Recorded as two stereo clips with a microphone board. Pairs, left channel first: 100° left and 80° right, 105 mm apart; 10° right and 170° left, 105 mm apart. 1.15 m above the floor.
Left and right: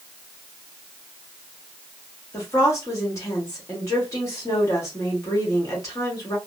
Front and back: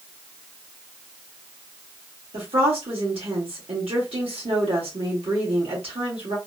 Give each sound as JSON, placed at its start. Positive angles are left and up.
{"t": 2.3, "sound": "a woman speaking", "azimuth_deg": 155, "distance_m": 1.7}